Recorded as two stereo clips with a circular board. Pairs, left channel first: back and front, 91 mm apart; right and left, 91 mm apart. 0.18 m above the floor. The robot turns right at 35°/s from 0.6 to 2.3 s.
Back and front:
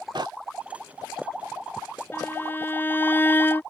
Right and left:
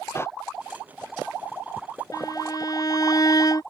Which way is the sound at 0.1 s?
30° right.